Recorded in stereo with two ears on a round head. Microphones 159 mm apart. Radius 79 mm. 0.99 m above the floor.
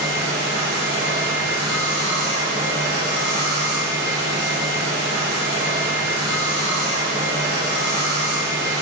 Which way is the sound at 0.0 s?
60° right (ahead or behind).